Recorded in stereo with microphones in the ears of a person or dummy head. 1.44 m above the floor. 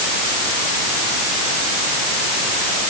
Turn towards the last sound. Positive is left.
No sound to turn to.